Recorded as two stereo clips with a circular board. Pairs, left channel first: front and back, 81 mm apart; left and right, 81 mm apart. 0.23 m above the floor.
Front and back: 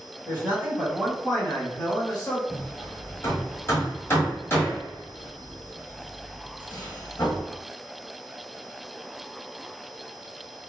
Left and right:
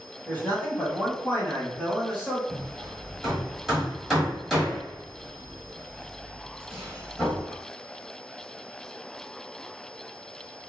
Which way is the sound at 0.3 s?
140° left.